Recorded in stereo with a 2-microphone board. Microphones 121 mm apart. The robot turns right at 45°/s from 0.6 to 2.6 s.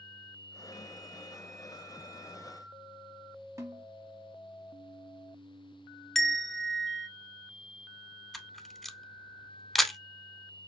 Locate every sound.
3.6 s a snare drum: 30° right (ahead or behind), 1.1 m
6.2 s a bell: 5° left (ahead or behind), 0.5 m
8.3 s a camera shutter: centre (ahead or behind), 0.5 m